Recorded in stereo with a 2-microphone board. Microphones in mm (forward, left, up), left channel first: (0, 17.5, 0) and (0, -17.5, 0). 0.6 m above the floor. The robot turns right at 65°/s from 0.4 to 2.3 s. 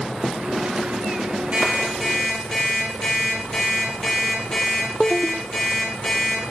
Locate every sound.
1.5 s an alarm clock: 40° right, 7 m; by 6.4 s 10° left, 7 m